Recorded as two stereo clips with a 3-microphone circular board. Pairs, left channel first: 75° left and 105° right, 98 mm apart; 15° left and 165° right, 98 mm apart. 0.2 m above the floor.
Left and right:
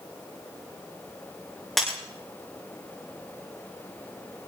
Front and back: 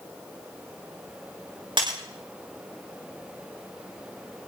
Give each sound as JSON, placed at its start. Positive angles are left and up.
{"t": 1.8, "sound": "breaking glass", "azimuth_deg": 160, "distance_m": 8.0}